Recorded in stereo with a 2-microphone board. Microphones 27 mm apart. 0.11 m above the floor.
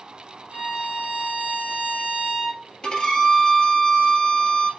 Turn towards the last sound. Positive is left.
turn(degrees=30)  # may be behind; listen again after turning